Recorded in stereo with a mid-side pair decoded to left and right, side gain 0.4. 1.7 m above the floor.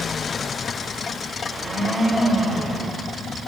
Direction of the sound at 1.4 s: 25° left.